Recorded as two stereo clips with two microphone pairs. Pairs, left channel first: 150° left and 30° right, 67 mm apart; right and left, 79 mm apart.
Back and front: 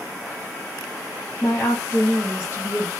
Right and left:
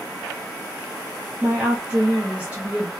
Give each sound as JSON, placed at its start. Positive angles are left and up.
{"t": 1.4, "sound": "a woman speaking", "azimuth_deg": 150, "distance_m": 0.7}